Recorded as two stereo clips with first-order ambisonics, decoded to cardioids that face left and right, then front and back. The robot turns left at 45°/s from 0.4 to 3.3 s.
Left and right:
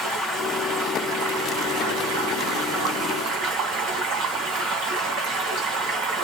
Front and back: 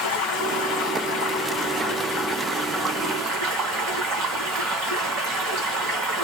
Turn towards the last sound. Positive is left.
turn(degrees=-135)